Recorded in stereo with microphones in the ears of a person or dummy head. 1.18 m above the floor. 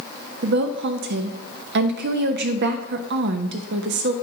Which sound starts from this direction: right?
A woman speaking, at 0.4 s.